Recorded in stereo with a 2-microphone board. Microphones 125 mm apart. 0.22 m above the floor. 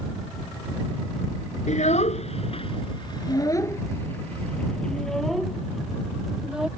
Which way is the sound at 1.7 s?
70° left (ahead or behind).